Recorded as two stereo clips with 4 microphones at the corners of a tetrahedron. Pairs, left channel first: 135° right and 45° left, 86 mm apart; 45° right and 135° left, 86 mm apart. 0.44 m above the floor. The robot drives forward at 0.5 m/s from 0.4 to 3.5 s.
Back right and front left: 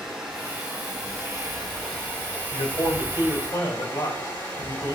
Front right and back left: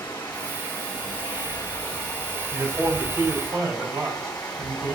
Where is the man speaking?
165° right, 1.4 m; by 5.0 s 170° right, 1.8 m.